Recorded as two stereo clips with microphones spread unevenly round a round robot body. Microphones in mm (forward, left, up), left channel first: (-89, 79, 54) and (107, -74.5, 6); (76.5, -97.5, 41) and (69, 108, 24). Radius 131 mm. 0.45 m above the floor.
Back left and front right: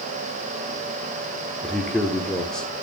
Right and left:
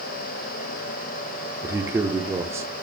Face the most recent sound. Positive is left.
turn(degrees=35)